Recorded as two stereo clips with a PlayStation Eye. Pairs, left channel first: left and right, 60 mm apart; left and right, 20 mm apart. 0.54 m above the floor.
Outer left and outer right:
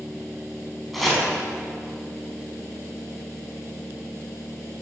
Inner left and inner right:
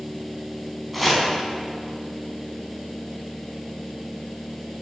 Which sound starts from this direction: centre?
Chopping, at 0.9 s.